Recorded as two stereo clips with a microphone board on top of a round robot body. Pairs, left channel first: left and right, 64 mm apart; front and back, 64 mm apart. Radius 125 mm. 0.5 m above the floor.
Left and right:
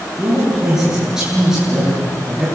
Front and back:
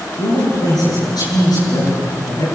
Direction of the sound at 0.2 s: 10° right.